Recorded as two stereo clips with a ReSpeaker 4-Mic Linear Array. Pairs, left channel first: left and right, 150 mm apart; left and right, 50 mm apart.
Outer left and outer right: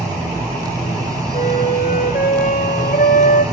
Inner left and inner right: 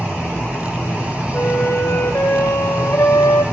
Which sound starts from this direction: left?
A flute, at 1.3 s.